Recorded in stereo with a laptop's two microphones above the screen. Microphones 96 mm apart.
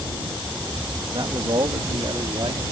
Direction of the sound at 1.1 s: 55° right (ahead or behind).